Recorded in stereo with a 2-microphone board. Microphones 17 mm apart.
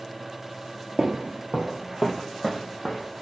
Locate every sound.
1.0 s footsteps: 55° right (ahead or behind), 0.5 m; by 3.2 s centre (ahead or behind), 1.2 m